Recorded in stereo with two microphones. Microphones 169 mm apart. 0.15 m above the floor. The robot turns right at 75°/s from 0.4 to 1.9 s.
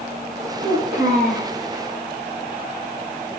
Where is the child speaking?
90° right, 3 m; by 1.5 s 20° right, 3 m.